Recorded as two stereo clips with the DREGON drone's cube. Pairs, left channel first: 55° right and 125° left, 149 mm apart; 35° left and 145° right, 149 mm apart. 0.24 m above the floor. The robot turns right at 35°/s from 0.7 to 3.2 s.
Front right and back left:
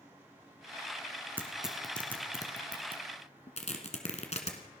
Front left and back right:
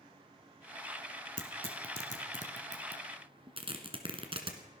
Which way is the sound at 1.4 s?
160° right.